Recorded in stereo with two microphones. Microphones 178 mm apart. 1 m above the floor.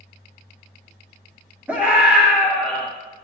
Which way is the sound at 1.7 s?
10° right (ahead or behind).